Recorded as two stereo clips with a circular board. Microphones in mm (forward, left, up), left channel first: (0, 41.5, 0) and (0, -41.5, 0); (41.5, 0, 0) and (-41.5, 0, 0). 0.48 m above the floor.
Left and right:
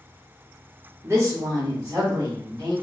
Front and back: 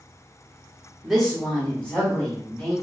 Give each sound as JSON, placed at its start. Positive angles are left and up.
{"t": 1.0, "sound": "a woman speaking", "azimuth_deg": -90, "distance_m": 0.9}